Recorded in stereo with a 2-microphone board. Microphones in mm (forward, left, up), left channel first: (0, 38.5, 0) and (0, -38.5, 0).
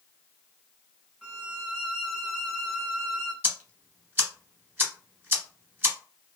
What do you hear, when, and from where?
1.2 s a violin: 5° right (ahead or behind), 0.8 m
3.4 s ticking: 25° right (ahead or behind), 1.1 m